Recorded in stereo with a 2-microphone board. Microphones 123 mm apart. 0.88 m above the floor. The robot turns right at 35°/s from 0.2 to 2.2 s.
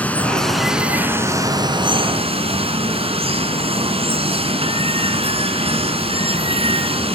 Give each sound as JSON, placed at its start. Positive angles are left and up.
{"t": 0.0, "sound": "running water", "azimuth_deg": 165, "distance_m": 1.8}